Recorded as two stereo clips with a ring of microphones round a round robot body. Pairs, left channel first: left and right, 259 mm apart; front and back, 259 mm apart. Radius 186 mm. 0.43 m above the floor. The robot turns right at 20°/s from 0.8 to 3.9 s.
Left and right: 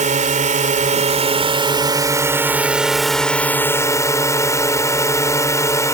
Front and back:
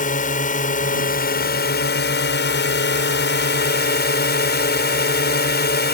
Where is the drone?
45° right; by 6.0 s 20° left.